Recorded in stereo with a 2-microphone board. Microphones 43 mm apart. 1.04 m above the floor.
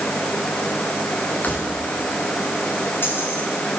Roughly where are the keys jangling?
Left.